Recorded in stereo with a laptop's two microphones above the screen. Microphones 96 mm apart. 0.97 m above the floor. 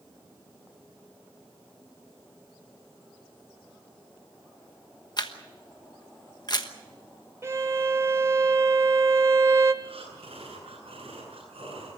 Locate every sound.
5.2 s a camera shutter: 45° left (ahead or behind), 1.2 m
7.4 s a violin: 30° right (ahead or behind), 0.8 m
9.8 s breathing: 75° right (ahead or behind), 9 m